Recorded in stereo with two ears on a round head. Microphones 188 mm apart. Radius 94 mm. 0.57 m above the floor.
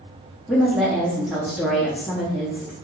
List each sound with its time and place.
0.5 s a woman speaking: centre (ahead or behind), 0.7 m